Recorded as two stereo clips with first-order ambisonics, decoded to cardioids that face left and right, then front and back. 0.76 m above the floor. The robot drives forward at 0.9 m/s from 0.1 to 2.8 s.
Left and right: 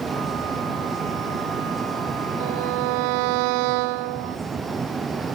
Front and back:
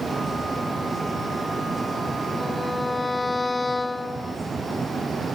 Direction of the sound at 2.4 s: 80° right.